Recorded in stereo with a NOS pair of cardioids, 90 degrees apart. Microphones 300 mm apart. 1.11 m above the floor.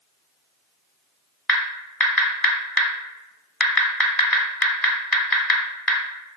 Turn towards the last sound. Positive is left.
turn(degrees=5)